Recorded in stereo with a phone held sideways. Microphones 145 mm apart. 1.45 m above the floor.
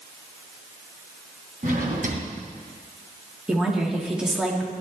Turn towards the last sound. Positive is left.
turn(degrees=-5)  # may be behind; listen again after turning